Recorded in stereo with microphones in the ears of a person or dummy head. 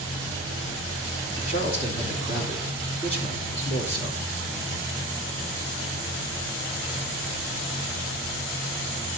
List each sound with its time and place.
1.4 s a man speaking: 60° left (ahead or behind), 2.5 m